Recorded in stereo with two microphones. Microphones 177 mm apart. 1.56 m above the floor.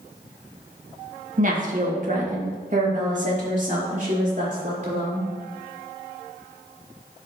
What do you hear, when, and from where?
1.4 s a woman speaking: 50° right (ahead or behind), 1.3 m; by 5.3 s 45° right (ahead or behind), 4 m